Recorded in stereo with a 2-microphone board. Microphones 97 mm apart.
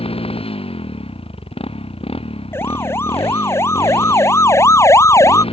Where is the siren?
25° left (ahead or behind); by 5.4 s 30° left (ahead or behind).